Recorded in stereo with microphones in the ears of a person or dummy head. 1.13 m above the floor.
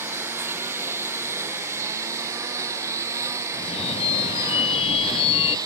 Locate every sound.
0.0 s a lawn mower: 10° right (ahead or behind); by 5.7 s 20° right (ahead or behind)
3.5 s a phone ringing: 30° left (ahead or behind)